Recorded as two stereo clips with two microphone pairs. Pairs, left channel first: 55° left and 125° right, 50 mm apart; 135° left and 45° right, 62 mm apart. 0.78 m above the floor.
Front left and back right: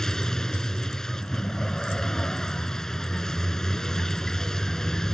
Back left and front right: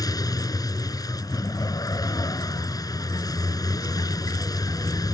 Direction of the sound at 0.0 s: 135° left.